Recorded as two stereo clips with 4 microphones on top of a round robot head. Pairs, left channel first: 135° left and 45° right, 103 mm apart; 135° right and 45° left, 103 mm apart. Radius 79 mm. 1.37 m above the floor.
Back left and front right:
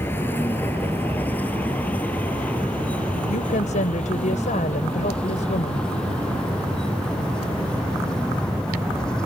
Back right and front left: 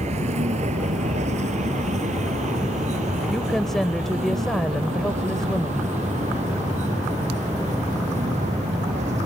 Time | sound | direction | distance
0.0 | a vehicle | 65° left | ?
3.3 | a woman speaking | 140° left | ?